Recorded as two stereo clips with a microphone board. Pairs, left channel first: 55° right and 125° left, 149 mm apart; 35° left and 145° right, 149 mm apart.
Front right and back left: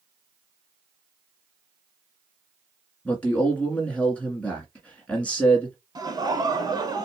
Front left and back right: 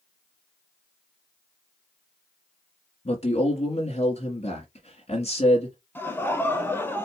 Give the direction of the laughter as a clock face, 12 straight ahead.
9 o'clock.